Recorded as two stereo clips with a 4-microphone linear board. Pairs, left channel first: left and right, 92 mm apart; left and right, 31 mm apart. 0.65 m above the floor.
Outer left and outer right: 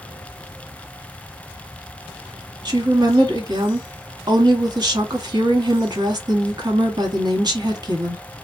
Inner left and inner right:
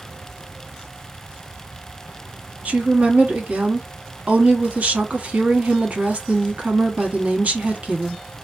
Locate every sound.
2.6 s a woman speaking: 45° right (ahead or behind), 1.0 m